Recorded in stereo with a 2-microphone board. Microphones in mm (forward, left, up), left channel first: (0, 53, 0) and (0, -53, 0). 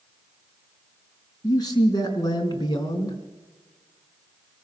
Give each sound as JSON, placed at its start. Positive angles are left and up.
{"t": 1.4, "sound": "a man speaking", "side_deg": 40, "distance_m": 4.0}